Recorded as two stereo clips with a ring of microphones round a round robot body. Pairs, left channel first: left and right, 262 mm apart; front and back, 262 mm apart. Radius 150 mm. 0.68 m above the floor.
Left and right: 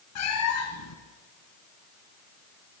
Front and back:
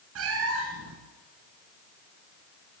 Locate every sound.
0.1 s a cat meowing: 130° left, 1.9 m